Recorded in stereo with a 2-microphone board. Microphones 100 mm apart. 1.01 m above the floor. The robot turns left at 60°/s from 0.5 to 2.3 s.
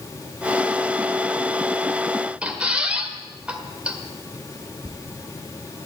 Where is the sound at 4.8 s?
80° right, 1.3 m.